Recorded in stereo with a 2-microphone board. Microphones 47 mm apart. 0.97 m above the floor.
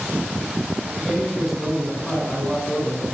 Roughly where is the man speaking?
Centre.